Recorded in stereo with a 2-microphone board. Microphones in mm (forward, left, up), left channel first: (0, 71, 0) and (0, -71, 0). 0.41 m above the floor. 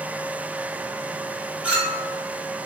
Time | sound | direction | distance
1.6 | a clink | 10° right (ahead or behind) | 1.8 m